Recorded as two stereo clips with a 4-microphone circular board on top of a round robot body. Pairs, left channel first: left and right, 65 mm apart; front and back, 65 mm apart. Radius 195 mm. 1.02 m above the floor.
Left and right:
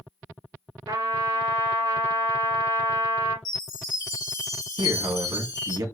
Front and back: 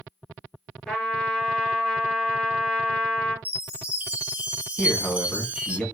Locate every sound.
0.9 s a trumpet: 85° right, 3 m
3.5 s a chime: 110° left, 2.5 m
4.8 s a man speaking: 80° right, 1.9 m